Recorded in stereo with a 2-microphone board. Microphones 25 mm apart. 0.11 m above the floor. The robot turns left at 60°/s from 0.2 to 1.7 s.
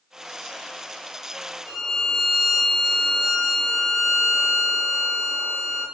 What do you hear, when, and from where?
1.7 s a violin: 30° left (ahead or behind), 0.8 m